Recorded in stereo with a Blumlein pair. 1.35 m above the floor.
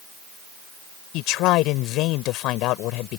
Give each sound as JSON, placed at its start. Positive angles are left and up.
{"t": 1.1, "sound": "a man speaking", "azimuth_deg": 40}